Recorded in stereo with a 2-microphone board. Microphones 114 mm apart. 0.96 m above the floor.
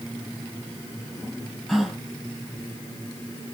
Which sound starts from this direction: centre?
A gasp, at 1.7 s.